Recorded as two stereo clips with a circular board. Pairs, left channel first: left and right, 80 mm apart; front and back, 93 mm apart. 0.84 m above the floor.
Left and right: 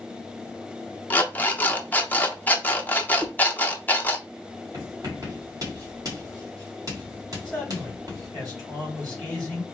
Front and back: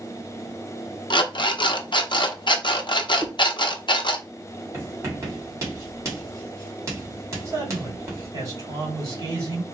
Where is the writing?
125° right, 1.9 m.